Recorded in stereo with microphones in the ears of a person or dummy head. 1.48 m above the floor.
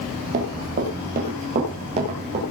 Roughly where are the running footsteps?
Right.